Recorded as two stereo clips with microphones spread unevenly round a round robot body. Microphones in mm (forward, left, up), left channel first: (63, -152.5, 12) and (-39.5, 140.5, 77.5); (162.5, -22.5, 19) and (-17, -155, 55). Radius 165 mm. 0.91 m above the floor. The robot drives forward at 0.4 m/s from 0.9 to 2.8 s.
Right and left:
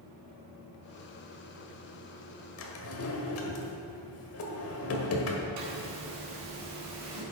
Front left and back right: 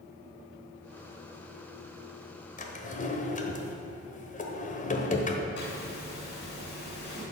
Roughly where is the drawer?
Ahead.